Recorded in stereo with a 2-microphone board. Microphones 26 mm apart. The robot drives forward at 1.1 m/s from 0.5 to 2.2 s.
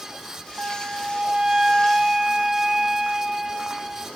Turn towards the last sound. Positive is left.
turn(degrees=-15)  # may be behind; listen again after turning